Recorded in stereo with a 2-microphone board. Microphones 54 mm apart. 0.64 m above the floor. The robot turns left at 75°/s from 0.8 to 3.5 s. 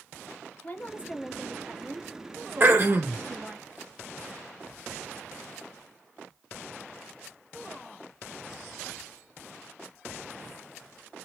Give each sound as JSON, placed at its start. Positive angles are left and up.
{"t": 0.6, "sound": "a woman speaking", "azimuth_deg": 50, "distance_m": 0.9}
{"t": 2.6, "sound": "throat clearing", "azimuth_deg": -50, "distance_m": 1.2}